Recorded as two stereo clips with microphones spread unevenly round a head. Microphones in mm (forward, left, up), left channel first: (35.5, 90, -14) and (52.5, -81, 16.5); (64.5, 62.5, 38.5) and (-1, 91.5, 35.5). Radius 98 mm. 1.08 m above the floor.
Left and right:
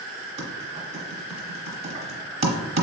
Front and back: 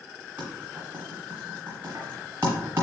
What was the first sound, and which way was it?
Typing on a keyboard, 125° right.